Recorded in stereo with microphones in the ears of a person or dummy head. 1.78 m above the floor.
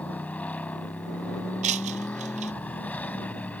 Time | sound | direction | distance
0.0 | a motorcycle | 10° left (ahead or behind) | ?
1.6 | breaking glass | 40° right (ahead or behind) | ?